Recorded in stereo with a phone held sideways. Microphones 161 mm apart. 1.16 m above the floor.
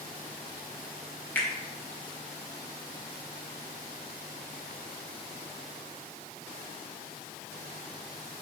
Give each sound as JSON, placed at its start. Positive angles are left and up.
{"t": 1.4, "sound": "a finger snap", "side_deg": 10, "distance_m": 0.8}